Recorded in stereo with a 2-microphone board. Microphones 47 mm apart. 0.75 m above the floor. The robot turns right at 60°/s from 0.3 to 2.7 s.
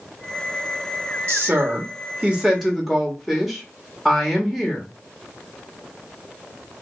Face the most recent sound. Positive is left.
turn(degrees=0)